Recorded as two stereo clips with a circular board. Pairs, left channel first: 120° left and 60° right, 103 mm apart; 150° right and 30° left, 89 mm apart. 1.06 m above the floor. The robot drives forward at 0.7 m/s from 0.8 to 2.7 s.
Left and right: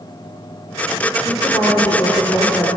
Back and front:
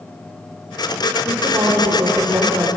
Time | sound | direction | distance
1.2 | a woman speaking | 60° left | 4 m